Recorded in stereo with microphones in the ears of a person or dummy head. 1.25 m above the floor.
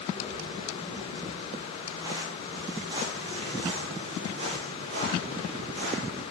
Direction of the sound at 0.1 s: 15° right (ahead or behind).